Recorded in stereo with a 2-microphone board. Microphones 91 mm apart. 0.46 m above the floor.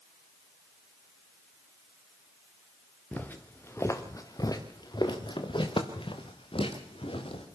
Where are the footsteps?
15° left (ahead or behind), 3 m; by 7.5 s 80° left, 4 m.